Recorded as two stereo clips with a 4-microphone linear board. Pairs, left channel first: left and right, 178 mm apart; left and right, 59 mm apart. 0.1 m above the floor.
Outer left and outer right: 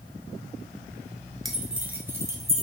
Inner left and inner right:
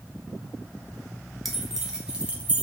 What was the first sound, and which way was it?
Keys jangling, centre (ahead or behind).